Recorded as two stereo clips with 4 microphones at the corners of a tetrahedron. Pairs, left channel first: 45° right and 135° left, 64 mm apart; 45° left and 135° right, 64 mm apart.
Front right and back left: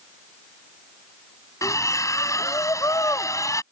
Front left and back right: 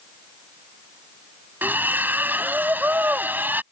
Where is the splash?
75° right.